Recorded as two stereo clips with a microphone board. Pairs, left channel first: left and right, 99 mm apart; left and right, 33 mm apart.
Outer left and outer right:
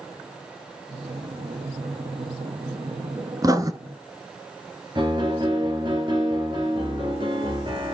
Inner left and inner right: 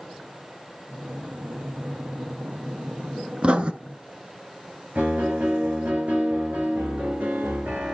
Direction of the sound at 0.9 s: 75° right (ahead or behind).